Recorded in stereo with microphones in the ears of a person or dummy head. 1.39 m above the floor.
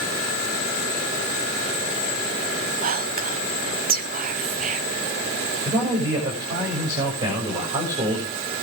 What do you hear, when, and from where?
2.8 s whispering: 45° right (ahead or behind), 0.7 m
5.7 s a man speaking: 25° right (ahead or behind), 6.5 m